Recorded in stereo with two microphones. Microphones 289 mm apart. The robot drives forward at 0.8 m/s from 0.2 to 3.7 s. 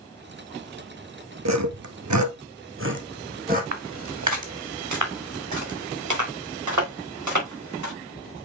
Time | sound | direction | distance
1.4 | sawing | 65° right (ahead or behind) | 0.9 m
3.7 | footsteps | 60° right (ahead or behind) | 1.4 m